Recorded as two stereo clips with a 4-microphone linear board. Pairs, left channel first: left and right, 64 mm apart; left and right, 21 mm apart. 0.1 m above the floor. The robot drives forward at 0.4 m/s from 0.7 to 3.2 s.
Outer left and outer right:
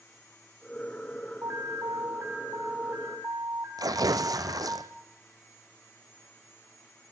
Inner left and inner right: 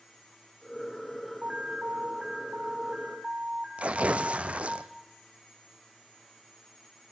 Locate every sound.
1.4 s an alarm: 50° right (ahead or behind), 1.8 m; by 4.8 s 40° right (ahead or behind), 2 m
3.8 s tearing paper: 75° right (ahead or behind), 1.1 m